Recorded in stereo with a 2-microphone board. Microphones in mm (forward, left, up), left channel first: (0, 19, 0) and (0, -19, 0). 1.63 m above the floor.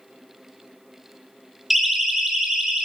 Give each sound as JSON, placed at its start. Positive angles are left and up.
{"t": 1.7, "sound": "a siren", "side_deg": -10, "distance_m": 4.0}